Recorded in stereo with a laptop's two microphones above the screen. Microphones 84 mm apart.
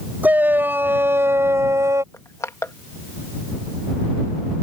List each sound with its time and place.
0.2 s a shout: 20° right (ahead or behind); by 2.0 s 40° right (ahead or behind)
2.1 s crushing: 35° left (ahead or behind)